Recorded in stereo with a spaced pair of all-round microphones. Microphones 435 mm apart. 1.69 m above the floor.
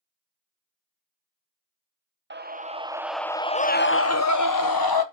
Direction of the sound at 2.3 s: 25° right (ahead or behind).